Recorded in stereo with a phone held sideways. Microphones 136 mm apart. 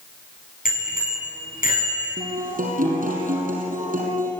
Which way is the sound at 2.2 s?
80° right.